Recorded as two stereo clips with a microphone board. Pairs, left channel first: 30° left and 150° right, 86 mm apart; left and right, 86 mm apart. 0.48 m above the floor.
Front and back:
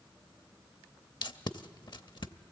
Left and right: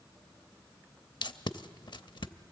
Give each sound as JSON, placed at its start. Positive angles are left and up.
{"t": 1.2, "sound": "tape being pulled", "azimuth_deg": 60, "distance_m": 0.6}